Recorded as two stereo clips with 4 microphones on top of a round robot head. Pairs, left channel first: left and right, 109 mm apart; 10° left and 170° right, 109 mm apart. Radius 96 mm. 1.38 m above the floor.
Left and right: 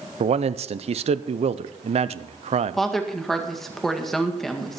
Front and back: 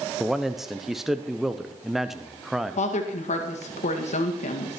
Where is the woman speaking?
5° left, 2.0 m.